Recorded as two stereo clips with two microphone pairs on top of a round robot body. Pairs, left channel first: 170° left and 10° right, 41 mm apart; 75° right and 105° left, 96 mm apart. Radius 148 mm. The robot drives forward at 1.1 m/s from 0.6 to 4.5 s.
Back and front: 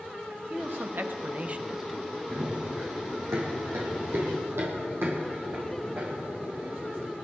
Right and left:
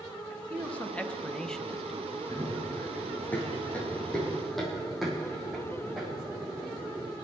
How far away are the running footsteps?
About 4 m.